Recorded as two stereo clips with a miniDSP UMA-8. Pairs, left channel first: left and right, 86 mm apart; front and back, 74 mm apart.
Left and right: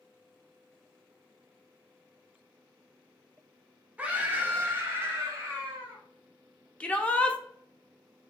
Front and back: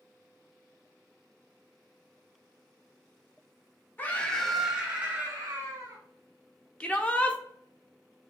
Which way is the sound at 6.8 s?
40° left.